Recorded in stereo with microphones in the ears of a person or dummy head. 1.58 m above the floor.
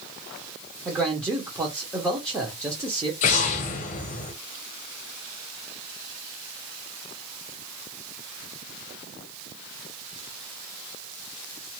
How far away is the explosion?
About 0.6 m.